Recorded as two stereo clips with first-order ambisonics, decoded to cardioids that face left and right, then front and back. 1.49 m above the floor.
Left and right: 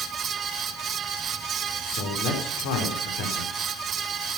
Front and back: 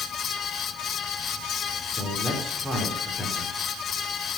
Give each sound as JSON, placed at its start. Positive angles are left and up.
{"t": 1.8, "sound": "a man speaking", "azimuth_deg": 90, "distance_m": 4.0}